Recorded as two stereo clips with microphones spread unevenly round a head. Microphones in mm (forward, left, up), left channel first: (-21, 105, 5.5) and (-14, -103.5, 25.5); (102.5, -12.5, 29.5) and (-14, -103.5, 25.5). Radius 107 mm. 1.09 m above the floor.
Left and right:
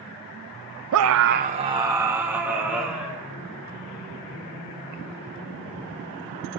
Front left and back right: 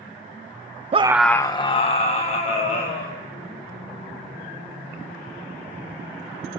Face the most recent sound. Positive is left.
turn(degrees=0)